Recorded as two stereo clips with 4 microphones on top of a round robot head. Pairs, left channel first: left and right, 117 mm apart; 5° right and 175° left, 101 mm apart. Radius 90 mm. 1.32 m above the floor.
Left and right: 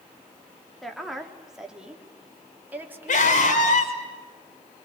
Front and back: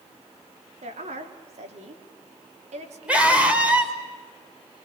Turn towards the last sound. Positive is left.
turn(degrees=100)